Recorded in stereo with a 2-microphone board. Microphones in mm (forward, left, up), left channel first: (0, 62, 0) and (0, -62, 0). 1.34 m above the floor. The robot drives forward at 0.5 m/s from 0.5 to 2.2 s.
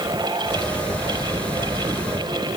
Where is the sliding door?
I don't hear a sliding door.